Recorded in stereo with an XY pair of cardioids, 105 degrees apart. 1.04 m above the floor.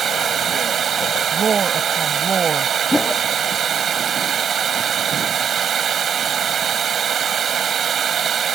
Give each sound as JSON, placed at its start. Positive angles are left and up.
{"t": 0.0, "sound": "running water", "azimuth_deg": -50}
{"t": 1.3, "sound": "a woman speaking", "azimuth_deg": -40}
{"t": 2.9, "sound": "a whoosh", "azimuth_deg": 10}